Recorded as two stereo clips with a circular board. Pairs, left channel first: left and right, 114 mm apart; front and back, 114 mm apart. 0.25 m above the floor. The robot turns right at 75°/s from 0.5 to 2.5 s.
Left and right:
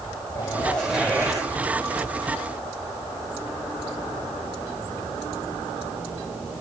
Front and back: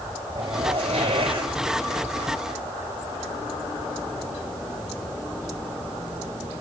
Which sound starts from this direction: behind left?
A zipper, at 0.3 s.